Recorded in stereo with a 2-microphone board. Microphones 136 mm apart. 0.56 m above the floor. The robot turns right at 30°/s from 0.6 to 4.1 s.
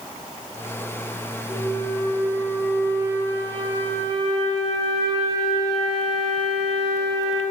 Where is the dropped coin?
I don't hear a dropped coin.